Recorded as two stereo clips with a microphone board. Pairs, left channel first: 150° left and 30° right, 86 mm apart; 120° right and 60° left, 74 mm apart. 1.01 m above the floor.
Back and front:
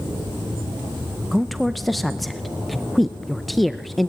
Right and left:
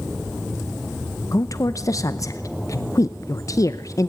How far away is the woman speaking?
About 0.7 m.